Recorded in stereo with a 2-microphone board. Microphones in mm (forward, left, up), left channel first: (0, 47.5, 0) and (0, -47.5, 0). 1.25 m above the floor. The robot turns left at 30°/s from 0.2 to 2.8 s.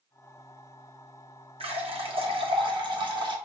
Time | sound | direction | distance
1.6 | a running tap | 85° right | 0.8 m